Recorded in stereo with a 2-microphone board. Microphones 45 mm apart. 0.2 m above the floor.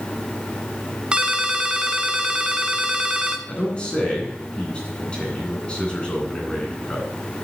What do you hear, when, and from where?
1.1 s a ringtone: 20° right (ahead or behind), 0.8 m
3.5 s a man speaking: 20° left (ahead or behind), 2.5 m